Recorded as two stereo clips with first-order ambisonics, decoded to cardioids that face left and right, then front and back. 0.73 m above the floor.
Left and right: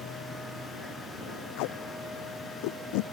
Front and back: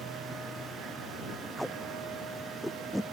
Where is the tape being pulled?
90° left.